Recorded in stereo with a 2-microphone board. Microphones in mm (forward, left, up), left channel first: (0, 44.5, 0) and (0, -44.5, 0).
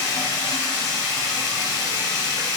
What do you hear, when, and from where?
0.0 s running water: 40° left (ahead or behind), 3 m